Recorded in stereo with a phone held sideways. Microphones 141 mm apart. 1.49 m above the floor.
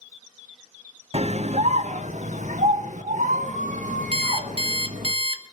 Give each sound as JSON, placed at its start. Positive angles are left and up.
{"t": 1.1, "sound": "a scream", "side_deg": -50, "distance_m": 0.7}
{"t": 4.1, "sound": "an alarm clock", "side_deg": -40, "distance_m": 1.0}